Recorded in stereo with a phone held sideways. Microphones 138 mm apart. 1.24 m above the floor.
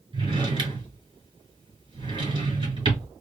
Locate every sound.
0.1 s a drawer: 35° right (ahead or behind), 2 m